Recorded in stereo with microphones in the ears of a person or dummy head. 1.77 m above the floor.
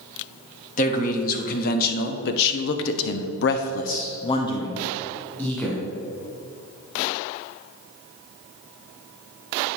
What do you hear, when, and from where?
0.8 s a man speaking: 40° left (ahead or behind), 1.7 m; by 5.8 s centre (ahead or behind), 1.6 m